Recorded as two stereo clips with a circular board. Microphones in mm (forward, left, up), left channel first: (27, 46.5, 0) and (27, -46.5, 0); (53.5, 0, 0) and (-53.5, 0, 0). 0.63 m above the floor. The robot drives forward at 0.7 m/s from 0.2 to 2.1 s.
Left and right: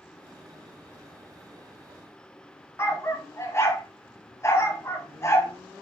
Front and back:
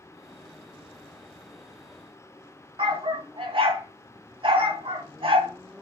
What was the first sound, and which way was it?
A dog barking, 150° left.